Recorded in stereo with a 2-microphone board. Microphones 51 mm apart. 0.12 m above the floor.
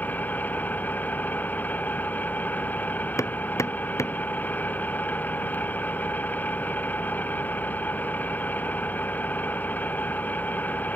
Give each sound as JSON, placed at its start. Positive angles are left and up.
{"t": 0.0, "sound": "an engine running", "side_deg": 35}
{"t": 3.2, "sound": "hammering", "side_deg": 75}